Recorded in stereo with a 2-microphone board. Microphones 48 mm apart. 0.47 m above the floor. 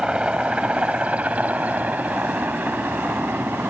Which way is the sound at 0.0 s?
20° right (ahead or behind).